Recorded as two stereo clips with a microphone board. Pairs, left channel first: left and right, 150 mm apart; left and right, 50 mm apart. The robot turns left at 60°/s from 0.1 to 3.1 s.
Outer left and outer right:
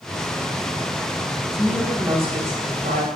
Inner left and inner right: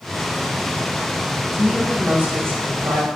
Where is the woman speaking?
Straight ahead, 1.9 m; by 3.1 s 90° right, 1.9 m.